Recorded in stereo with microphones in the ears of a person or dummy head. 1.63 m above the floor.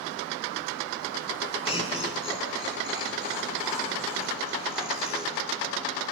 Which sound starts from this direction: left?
Laughter, at 1.6 s.